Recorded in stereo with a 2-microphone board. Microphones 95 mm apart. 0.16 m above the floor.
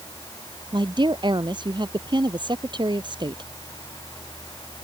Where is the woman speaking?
50° right (ahead or behind).